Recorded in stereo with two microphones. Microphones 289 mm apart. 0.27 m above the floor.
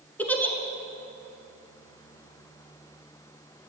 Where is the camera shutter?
I don't hear a camera shutter.